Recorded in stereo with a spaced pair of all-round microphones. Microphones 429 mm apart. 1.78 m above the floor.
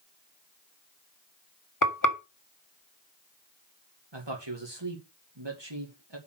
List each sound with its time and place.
1.8 s frying: 45° left (ahead or behind), 1.5 m
4.1 s a man speaking: 70° right (ahead or behind), 2.5 m